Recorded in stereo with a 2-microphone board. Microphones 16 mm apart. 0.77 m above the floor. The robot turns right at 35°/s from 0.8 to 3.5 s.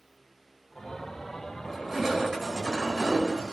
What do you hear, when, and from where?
1.6 s crushing: 170° right, 5 m; by 3.5 s 105° right, 5 m